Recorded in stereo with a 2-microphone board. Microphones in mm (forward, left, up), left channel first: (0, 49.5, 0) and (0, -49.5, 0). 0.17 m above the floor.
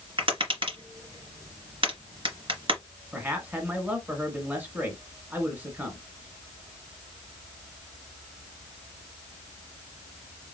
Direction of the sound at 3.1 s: 15° right (ahead or behind).